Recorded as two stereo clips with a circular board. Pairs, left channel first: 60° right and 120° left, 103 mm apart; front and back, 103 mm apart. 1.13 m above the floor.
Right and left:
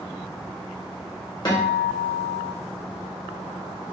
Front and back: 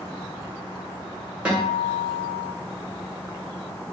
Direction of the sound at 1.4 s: 105° right.